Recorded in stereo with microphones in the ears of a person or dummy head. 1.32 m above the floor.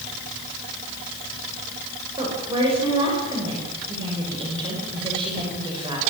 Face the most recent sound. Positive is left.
turn(degrees=-30)  # may be behind; listen again after turning